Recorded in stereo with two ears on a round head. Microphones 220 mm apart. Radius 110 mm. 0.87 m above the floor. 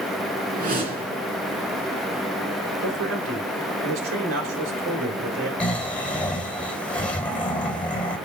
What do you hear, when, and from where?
0.5 s a whoosh: 35° right (ahead or behind), 3 m
2.8 s a man speaking: 55° right (ahead or behind), 3.5 m
5.6 s snoring: 5° left (ahead or behind), 3 m